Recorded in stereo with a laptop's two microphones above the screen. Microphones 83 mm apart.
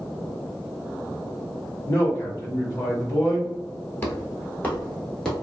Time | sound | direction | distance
1.9 | a man speaking | 35° left (ahead or behind) | 1.1 m
4.0 | footsteps | 25° left (ahead or behind) | 1.2 m